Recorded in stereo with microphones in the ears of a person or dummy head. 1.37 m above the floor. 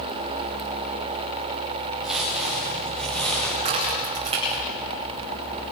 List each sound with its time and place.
2.0 s footsteps: centre (ahead or behind), 9 m; by 3.5 s 10° left (ahead or behind), 8.5 m
3.6 s a crack: 30° right (ahead or behind), 9 m